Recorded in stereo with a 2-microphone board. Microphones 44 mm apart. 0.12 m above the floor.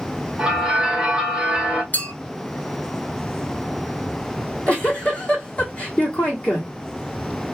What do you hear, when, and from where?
0.4 s a bell: 20° right (ahead or behind), 1.2 m
1.9 s a clink: 40° left (ahead or behind), 1.2 m
4.4 s a giggle: 30° left (ahead or behind), 1.7 m